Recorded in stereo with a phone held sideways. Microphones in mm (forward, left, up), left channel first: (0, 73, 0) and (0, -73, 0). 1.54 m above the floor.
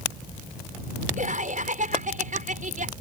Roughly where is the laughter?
Right.